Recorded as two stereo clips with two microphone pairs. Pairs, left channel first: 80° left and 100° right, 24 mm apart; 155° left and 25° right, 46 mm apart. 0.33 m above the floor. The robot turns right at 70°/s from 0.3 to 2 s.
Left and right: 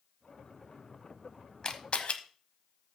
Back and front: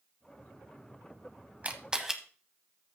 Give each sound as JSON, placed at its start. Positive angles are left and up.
{"t": 1.6, "sound": "a camera shutter", "azimuth_deg": 25, "distance_m": 1.0}